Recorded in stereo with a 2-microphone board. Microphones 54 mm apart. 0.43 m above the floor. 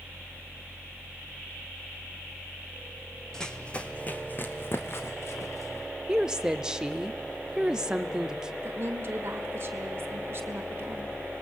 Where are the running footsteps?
10° left (ahead or behind), 1.2 m; by 5.9 s 60° left (ahead or behind), 1.7 m.